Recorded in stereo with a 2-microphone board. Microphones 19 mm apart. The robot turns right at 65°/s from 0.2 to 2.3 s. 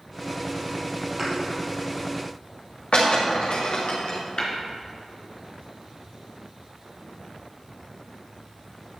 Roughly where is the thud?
Right.